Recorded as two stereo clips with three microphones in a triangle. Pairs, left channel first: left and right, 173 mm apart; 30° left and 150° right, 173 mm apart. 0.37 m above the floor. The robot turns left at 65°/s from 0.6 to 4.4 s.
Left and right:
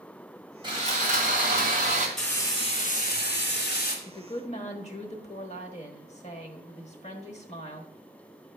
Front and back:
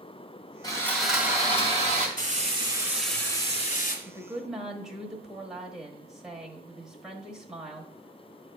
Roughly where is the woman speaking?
Behind left.